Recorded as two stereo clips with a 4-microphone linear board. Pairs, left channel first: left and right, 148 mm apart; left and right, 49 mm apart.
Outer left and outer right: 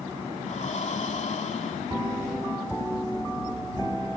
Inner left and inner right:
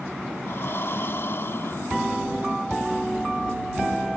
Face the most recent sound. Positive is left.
turn(degrees=50)  # may be behind; listen again after turning